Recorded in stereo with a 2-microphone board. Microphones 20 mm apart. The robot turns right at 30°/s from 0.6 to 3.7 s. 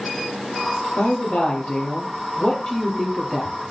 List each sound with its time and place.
1.0 s a woman speaking: 100° left, 8.5 m; by 3.5 s straight behind, 8.5 m